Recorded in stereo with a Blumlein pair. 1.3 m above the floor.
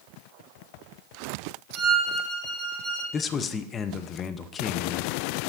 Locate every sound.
1.8 s a violin: straight ahead, 1.4 m
3.1 s a man speaking: 25° left, 0.6 m